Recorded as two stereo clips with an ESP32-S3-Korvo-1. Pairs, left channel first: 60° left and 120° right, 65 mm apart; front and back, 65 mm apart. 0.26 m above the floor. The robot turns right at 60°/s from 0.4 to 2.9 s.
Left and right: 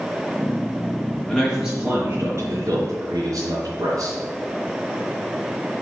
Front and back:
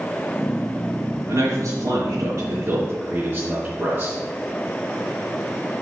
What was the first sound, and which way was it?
A man speaking, 150° left.